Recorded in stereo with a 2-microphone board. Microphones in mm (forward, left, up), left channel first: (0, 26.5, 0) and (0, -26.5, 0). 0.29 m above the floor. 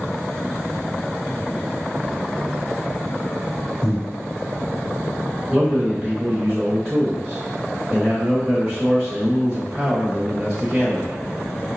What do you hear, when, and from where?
3.8 s breathing: centre (ahead or behind), 1.9 m
5.5 s a man speaking: 15° right (ahead or behind), 1.0 m